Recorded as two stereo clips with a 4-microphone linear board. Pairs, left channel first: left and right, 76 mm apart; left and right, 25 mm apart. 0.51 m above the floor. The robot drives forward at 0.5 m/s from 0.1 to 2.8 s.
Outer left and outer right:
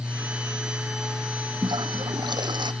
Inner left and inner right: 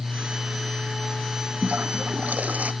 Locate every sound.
1.6 s a toilet flushing: 80° right